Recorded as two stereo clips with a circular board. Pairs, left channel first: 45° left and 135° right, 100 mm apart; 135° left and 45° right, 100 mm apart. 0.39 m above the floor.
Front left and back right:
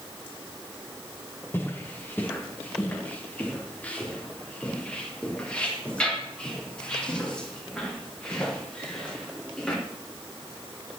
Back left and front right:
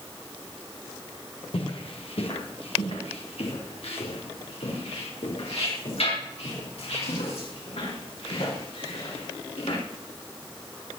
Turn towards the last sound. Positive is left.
turn(degrees=125)